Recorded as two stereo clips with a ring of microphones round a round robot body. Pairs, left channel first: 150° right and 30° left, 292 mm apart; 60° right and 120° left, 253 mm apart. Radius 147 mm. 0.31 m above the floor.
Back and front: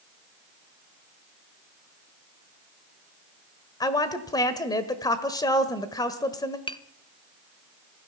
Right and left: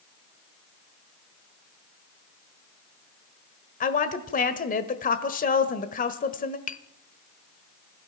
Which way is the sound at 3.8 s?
80° right.